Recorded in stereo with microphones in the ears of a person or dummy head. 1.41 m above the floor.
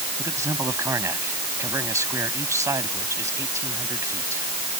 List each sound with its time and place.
0.2 s a man speaking: 20° right (ahead or behind)